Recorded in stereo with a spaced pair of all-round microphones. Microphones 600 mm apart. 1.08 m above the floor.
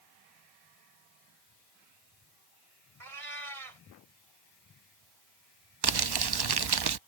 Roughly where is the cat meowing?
Right.